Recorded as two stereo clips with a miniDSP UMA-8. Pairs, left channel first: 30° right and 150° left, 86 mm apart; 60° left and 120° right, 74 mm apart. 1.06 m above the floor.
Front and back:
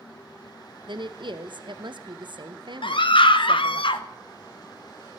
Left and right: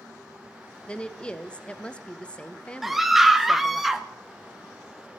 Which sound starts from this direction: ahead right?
A scream, at 2.8 s.